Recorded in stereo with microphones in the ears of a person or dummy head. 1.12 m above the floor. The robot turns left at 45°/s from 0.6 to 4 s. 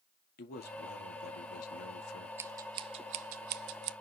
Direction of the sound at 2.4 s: 15° right (ahead or behind).